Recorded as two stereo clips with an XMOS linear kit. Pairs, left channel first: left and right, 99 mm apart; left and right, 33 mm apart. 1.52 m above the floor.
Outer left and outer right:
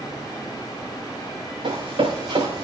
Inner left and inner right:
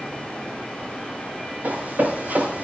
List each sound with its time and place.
1.6 s running footsteps: 65° right (ahead or behind), 6.5 m; by 2.6 s 70° right (ahead or behind), 6.5 m